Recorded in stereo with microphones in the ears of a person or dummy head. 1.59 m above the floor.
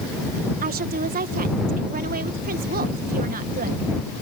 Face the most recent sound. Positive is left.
turn(degrees=-40)  # may be behind; listen again after turning